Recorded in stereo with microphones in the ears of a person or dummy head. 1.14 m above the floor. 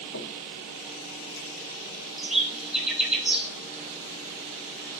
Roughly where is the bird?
Centre.